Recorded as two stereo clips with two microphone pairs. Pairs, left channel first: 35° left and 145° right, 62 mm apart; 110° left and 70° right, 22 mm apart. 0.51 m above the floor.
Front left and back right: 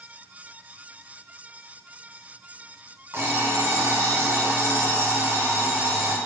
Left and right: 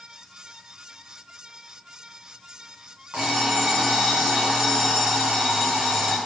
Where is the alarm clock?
95° right, 2 m.